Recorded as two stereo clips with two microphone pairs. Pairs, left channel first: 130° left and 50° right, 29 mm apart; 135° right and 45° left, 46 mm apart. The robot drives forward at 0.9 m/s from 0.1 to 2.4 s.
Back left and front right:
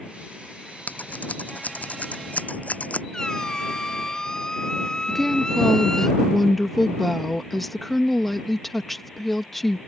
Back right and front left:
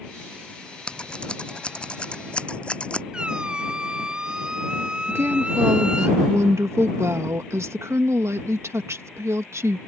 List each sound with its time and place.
0.9 s scissors: 160° left
3.1 s a squeak: 95° left
5.1 s a woman speaking: 45° left